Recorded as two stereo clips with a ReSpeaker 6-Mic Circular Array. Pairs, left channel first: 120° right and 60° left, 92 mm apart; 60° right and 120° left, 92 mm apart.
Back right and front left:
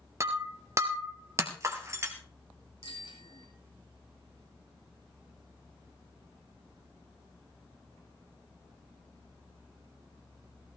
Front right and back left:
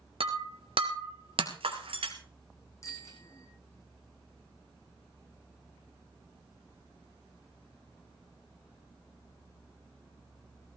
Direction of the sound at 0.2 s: 115° left.